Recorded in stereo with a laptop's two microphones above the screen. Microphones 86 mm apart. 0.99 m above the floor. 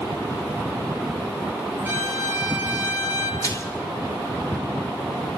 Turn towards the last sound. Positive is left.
turn(degrees=35)  # may be behind; listen again after turning